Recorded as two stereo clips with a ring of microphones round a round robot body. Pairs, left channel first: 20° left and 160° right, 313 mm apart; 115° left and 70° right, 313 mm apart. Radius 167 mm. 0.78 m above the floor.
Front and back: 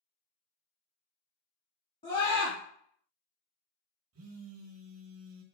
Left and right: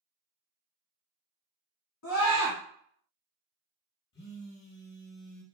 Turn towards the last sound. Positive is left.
turn(degrees=165)